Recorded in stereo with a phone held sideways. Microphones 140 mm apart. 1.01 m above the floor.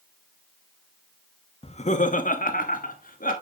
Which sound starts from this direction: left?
Laughter, at 1.6 s.